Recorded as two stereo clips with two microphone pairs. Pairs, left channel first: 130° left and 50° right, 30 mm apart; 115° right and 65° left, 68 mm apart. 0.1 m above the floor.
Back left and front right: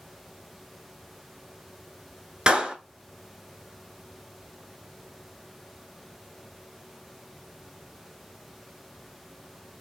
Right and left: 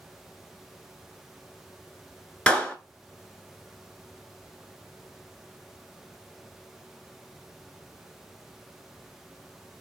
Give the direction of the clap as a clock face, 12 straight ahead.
2 o'clock.